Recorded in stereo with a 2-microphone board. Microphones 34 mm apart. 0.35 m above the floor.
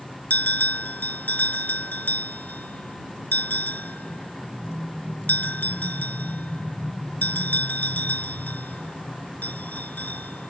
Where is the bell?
65° left (ahead or behind).